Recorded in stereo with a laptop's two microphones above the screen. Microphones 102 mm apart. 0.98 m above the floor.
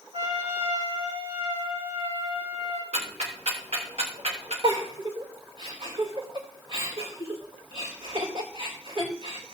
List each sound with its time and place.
0.1 s a trumpet: 75° right (ahead or behind), 6.5 m
2.9 s ticking: 70° right (ahead or behind), 3.5 m
4.6 s a giggle: 55° right (ahead or behind), 4 m